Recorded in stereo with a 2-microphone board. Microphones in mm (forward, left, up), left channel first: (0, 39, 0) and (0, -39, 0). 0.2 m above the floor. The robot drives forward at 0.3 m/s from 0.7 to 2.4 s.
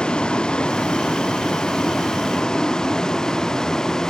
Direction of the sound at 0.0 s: 10° left (ahead or behind).